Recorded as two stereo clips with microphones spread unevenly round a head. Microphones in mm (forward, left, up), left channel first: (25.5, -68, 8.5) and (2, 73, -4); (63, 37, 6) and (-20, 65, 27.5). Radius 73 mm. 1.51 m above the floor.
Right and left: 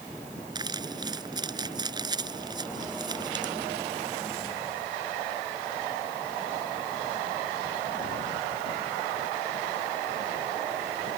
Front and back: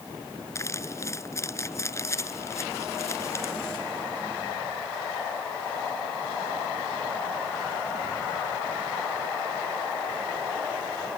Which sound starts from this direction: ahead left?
Crumpling, at 0.6 s.